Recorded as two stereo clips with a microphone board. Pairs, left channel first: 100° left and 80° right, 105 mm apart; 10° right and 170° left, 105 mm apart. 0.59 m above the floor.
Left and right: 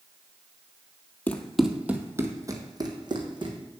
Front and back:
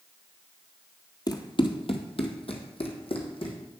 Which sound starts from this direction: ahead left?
Running footsteps, at 1.3 s.